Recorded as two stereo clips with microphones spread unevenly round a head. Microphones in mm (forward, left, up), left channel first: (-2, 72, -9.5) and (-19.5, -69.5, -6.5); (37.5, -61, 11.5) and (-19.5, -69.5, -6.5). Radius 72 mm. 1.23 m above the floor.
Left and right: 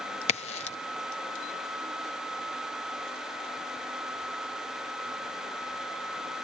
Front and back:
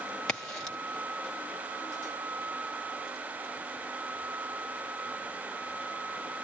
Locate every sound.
0.3 s a crack: 100° left, 0.7 m